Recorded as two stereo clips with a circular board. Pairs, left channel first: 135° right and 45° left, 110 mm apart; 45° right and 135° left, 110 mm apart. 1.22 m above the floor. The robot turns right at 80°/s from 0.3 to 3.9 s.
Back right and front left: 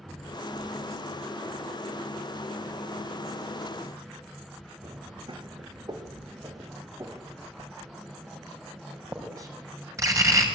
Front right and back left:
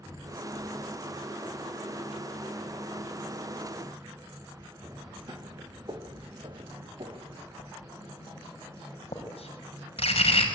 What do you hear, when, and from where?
4.8 s footsteps: 80° left, 3 m; by 7.5 s 105° left, 4 m
7.6 s writing: 15° right, 5.5 m